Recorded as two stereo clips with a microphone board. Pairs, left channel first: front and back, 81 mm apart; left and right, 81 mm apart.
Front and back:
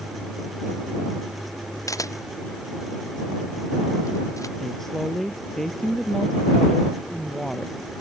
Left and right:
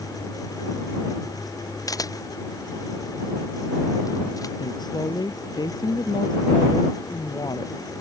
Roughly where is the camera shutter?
Ahead left.